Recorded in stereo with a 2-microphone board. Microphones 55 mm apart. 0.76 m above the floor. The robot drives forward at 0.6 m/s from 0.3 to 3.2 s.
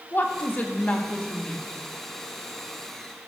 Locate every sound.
0.1 s a woman speaking: 40° left (ahead or behind), 0.8 m; by 1.6 s 25° left (ahead or behind), 1.3 m